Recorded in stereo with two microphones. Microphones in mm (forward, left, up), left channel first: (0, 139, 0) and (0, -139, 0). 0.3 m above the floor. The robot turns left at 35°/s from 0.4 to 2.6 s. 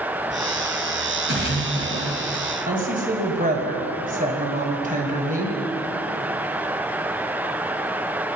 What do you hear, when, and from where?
1.3 s a splash: 85° right, 2 m; by 2.5 s 125° right, 2 m
2.7 s a woman speaking: 30° right (ahead or behind), 1.9 m